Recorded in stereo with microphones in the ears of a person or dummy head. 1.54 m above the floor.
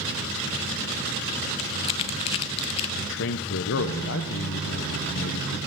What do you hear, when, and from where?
1.6 s crumpling: 35° left (ahead or behind), 0.5 m
3.0 s a man speaking: 70° left (ahead or behind), 0.7 m